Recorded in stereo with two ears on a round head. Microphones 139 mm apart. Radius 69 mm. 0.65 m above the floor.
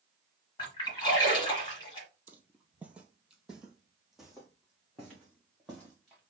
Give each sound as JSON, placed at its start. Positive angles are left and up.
{"t": 0.6, "sound": "a splash", "side_deg": 30, "distance_m": 1.9}
{"t": 2.3, "sound": "footsteps", "side_deg": -10, "distance_m": 0.6}